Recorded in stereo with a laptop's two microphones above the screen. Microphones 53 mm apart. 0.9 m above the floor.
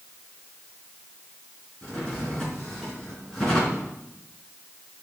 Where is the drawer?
10° left (ahead or behind), 4.5 m.